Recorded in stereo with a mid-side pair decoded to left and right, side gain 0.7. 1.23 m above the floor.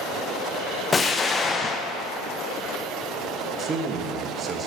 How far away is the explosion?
About 0.8 m.